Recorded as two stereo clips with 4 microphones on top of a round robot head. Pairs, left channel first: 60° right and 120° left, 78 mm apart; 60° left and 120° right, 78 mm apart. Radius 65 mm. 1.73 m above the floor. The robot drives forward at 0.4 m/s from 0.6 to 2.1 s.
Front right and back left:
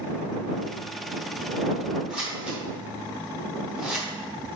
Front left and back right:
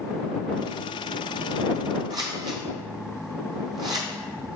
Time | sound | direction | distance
2.1 | scissors | 160° right | 0.7 m